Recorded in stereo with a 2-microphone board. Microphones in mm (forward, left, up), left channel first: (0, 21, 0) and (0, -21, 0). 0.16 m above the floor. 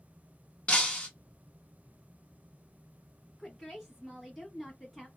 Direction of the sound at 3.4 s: Centre (ahead or behind).